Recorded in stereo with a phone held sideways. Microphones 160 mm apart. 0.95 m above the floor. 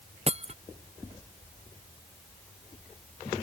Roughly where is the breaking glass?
Right.